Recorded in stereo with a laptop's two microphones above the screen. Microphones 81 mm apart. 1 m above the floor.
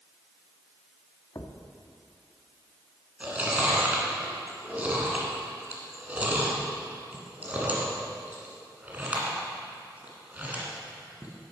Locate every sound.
1.4 s a thud: 45° left (ahead or behind), 0.7 m
3.2 s chewing: 20° right (ahead or behind), 1.7 m